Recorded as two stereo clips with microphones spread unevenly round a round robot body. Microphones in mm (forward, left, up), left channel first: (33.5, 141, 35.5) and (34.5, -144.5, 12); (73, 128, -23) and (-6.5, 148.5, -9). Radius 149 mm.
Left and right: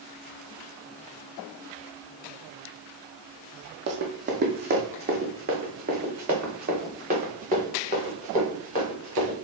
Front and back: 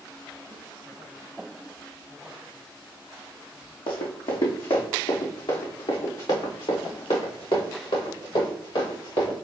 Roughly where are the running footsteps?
Ahead right.